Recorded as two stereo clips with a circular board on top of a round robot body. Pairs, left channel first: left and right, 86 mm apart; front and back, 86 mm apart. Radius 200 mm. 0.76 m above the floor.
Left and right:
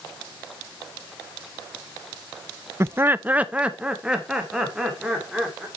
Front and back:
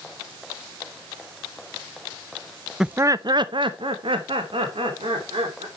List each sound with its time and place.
2.8 s laughter: 100° right, 0.5 m; by 5.7 s 175° right, 3 m